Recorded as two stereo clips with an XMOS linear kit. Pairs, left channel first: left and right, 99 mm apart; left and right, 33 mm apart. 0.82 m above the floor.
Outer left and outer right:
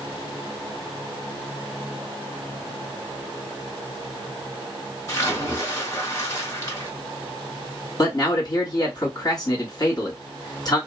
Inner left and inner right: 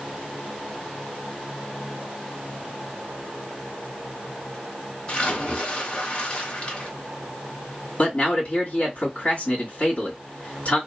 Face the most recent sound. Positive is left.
turn(degrees=40)  # may be behind; listen again after turning